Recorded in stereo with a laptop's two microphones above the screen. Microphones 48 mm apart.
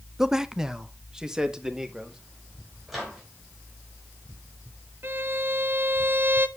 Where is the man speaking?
10° right (ahead or behind), 0.7 m; by 2.2 s 15° right (ahead or behind), 2.5 m.